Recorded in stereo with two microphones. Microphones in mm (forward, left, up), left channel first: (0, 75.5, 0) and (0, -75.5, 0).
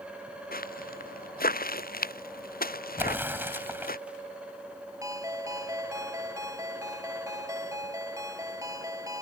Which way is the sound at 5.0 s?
20° right (ahead or behind).